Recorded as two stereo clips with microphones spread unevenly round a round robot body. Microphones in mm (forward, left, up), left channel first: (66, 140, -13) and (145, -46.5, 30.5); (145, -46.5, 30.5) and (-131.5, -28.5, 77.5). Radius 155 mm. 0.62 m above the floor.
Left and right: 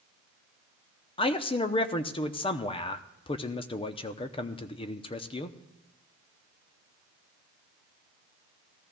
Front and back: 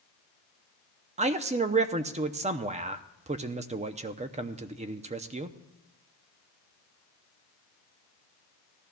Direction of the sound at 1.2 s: 110° left.